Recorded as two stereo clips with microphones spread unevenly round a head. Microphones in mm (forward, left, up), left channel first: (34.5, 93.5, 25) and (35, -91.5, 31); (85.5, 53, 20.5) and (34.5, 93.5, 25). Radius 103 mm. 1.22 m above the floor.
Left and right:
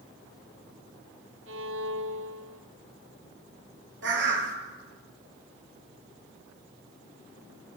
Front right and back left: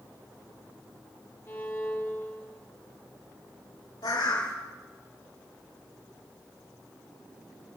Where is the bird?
70° right, 4 m.